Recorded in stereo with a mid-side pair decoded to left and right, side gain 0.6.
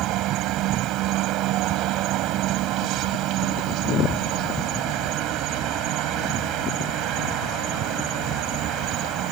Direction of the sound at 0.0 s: 65° right.